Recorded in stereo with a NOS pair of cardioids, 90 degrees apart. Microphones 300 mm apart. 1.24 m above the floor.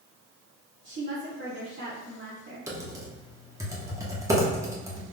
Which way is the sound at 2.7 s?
10° right.